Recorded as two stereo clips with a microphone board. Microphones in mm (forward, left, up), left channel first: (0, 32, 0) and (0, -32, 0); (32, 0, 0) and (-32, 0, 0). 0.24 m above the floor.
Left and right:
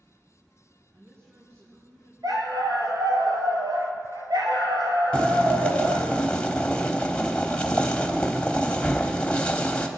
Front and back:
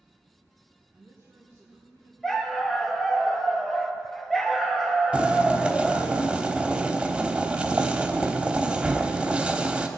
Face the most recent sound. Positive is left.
turn(degrees=135)